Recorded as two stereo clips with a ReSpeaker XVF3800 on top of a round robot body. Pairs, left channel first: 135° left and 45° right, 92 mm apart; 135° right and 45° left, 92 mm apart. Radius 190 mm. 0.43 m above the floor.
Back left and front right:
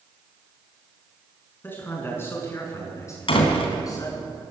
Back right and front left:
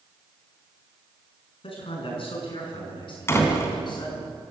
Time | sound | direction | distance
1.6 | a man speaking | 155° right | 7 m
3.3 | a door slam | 160° left | 3.5 m